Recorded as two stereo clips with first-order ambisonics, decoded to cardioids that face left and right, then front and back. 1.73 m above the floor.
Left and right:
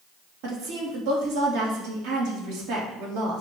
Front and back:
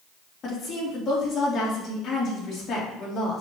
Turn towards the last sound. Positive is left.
turn(degrees=-60)